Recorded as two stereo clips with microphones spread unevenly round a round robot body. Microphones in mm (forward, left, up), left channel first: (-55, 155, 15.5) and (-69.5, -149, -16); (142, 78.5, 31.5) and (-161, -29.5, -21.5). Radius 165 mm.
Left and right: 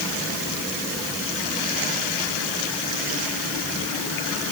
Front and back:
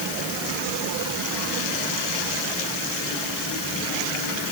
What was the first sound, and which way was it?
Only background noise.